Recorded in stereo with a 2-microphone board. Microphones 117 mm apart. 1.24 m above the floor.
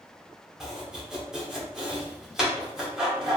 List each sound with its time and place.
0.6 s chopping: 5° right (ahead or behind), 1.5 m